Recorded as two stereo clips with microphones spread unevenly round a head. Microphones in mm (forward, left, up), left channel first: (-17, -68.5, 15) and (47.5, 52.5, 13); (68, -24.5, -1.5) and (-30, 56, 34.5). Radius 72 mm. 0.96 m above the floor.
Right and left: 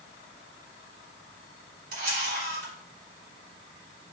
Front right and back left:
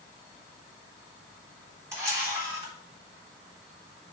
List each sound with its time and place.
1.9 s a camera shutter: 70° left, 3.5 m